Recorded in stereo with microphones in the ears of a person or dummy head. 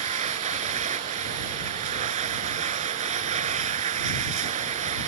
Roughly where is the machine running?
Right.